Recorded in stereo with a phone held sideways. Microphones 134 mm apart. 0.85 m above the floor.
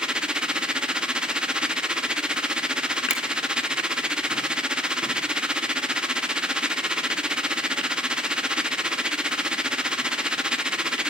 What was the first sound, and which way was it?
A machine running, 5° right (ahead or behind).